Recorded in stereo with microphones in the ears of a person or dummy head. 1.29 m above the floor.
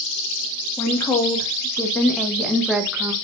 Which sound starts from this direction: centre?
A woman speaking, at 0.8 s.